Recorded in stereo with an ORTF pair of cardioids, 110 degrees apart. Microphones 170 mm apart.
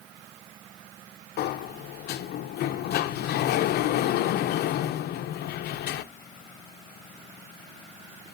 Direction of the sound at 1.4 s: 70° left.